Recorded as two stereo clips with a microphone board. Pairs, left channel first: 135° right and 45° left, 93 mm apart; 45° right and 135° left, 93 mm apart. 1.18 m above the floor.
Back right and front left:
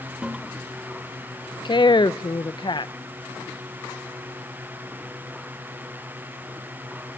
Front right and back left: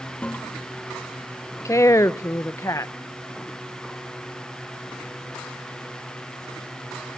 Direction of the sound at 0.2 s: 15° right.